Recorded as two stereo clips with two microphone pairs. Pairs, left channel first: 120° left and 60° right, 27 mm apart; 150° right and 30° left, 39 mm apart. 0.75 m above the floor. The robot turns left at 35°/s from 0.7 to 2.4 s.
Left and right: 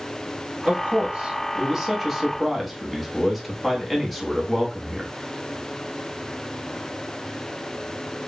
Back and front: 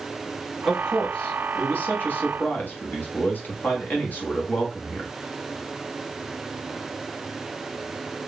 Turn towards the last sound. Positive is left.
turn(degrees=-145)